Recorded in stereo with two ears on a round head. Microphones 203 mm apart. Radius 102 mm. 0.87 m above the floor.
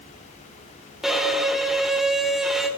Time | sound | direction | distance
1.0 | a violin | centre (ahead or behind) | 0.6 m